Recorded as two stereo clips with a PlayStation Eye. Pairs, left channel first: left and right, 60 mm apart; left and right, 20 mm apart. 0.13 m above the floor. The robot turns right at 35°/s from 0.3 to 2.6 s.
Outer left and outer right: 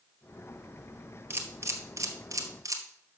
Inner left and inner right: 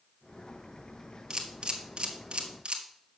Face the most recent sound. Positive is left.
turn(degrees=-65)  # may be behind; listen again after turning